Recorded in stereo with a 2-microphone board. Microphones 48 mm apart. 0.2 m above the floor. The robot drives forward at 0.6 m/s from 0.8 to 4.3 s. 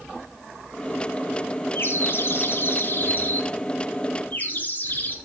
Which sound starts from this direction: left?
A bird, at 1.8 s.